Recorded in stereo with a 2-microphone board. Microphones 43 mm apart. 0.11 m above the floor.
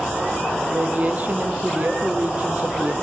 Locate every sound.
0.7 s a woman speaking: 40° right (ahead or behind), 4 m